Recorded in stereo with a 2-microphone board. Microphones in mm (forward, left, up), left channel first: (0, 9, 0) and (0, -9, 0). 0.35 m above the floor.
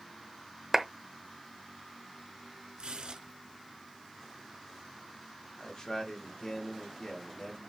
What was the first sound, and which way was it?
A clap, 25° right (ahead or behind).